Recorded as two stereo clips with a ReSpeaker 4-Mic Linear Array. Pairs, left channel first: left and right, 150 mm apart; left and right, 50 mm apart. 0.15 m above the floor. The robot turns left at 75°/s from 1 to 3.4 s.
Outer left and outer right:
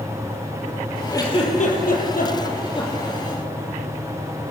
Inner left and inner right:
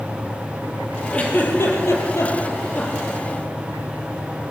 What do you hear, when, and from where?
1.1 s a giggle: 20° left (ahead or behind), 4.5 m; by 3.2 s 5° left (ahead or behind), 4.5 m